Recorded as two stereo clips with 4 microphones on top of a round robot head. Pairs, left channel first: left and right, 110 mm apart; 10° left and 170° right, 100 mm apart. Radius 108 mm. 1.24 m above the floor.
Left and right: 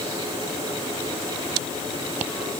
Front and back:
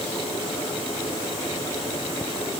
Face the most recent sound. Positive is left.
No sound to turn to.